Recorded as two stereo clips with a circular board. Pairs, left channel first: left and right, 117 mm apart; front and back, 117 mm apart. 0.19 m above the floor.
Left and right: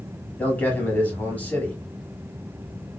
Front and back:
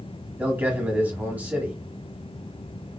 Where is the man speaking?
135° left, 1.3 m.